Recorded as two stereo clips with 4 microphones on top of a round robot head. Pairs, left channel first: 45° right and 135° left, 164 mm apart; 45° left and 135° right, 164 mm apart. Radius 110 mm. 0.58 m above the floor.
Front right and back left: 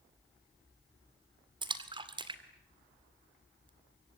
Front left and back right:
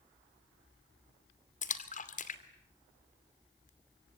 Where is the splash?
80° left, 2.5 m.